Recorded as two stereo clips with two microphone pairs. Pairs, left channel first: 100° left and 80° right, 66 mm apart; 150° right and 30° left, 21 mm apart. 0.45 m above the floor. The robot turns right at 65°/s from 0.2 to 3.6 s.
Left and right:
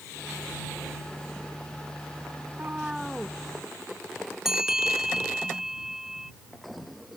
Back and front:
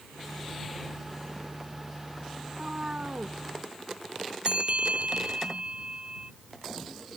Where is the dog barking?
No dog barking in this recording.